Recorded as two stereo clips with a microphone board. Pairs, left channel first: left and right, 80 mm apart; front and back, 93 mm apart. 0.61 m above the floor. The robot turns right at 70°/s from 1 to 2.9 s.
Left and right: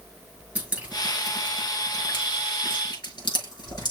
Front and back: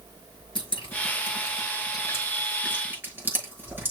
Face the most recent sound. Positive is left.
turn(degrees=115)